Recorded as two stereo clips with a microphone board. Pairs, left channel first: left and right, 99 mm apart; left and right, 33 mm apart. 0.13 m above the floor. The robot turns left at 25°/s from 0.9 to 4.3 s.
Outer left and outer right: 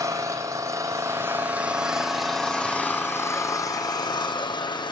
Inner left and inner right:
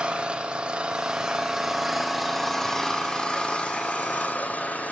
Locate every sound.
0.0 s an engine running: 150° right, 1.8 m; by 4.9 s 125° left, 1.8 m